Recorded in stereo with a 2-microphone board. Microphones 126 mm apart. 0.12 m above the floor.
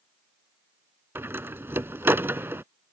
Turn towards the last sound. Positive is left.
turn(degrees=-20)  # may be behind; listen again after turning